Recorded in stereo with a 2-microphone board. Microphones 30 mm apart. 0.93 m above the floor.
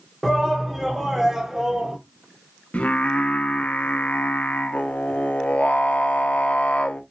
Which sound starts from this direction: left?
Singing, at 2.7 s.